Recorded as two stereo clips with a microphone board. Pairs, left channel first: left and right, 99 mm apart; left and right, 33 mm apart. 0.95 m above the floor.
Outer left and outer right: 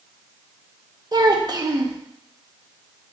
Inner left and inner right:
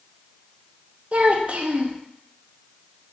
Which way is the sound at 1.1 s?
45° right (ahead or behind).